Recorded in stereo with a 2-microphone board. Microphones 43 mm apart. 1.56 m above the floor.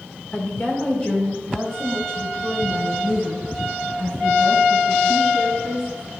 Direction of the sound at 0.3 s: 40° left (ahead or behind).